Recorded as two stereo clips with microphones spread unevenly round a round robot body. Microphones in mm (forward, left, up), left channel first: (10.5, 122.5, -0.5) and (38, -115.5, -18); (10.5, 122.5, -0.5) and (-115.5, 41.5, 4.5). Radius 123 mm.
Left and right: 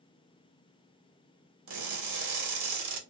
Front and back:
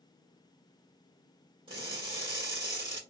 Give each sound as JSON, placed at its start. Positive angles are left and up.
{"t": 1.7, "sound": "crushing", "azimuth_deg": -75, "distance_m": 1.2}